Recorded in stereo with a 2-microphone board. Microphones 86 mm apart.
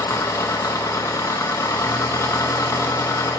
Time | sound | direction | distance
0.0 | an engine running | 40° left (ahead or behind) | 0.7 m